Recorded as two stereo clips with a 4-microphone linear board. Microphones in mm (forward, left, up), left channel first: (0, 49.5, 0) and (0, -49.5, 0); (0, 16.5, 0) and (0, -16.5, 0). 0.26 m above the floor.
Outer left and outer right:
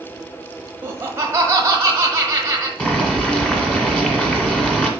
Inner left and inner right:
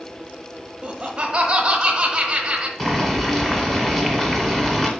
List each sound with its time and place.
0.8 s laughter: 25° right (ahead or behind), 1.2 m
2.8 s boiling: 10° left (ahead or behind), 1.5 m